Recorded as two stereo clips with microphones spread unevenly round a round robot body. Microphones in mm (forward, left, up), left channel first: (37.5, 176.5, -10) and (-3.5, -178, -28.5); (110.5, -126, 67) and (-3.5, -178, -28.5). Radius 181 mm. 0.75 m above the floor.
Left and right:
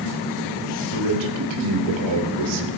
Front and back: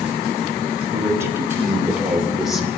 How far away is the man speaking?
About 3.5 m.